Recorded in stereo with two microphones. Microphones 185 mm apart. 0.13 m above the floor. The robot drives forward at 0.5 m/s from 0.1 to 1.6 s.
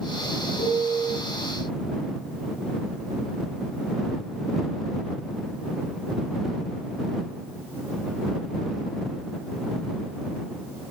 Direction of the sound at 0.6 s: 35° left (ahead or behind).